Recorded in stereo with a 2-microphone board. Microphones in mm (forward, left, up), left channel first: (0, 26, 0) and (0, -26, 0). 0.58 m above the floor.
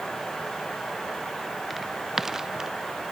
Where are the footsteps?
Centre (ahead or behind); by 2.7 s 10° right (ahead or behind).